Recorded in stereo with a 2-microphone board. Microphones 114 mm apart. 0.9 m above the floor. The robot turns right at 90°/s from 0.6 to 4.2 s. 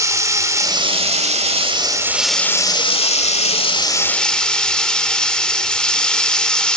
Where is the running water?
150° right, 1.6 m; by 6.8 s 170° left, 1.6 m.